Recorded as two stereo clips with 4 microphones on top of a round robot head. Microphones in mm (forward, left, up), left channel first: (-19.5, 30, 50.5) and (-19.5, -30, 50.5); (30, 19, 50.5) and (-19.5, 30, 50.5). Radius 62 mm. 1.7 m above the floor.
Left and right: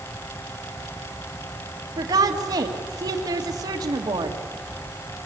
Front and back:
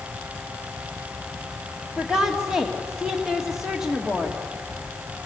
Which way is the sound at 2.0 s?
110° right.